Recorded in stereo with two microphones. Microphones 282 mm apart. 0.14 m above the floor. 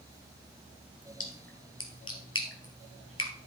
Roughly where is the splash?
Left.